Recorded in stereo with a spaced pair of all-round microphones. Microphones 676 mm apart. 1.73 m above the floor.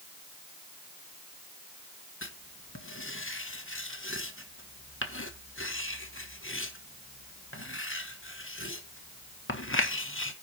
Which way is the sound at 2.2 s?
20° left (ahead or behind).